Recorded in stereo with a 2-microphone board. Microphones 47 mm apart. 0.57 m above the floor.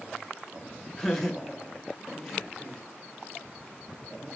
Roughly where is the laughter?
Centre.